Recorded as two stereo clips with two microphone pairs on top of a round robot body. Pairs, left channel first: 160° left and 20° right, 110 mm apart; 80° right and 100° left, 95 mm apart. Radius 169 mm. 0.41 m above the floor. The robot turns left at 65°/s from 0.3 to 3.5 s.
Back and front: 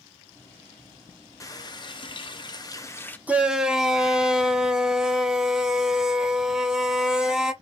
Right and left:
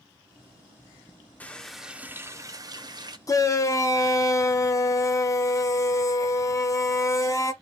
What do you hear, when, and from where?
1.4 s a running tap: 155° right, 0.8 m; by 3.2 s 90° left, 0.8 m
3.3 s a shout: 90° right, 0.8 m; by 7.5 s 105° right, 0.8 m